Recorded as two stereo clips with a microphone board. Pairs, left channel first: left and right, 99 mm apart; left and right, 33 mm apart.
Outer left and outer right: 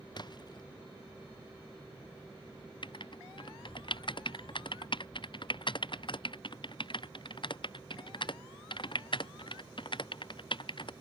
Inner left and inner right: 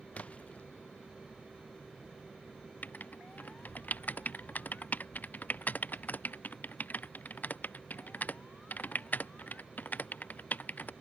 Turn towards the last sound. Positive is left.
turn(degrees=55)  # may be behind; listen again after turning